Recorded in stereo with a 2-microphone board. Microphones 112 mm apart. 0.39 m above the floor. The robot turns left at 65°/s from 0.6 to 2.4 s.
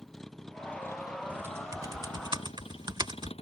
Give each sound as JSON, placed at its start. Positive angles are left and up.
{"t": 0.0, "sound": "a vehicle", "side_deg": 5}
{"t": 1.3, "sound": "typing on a keyboard", "side_deg": -15}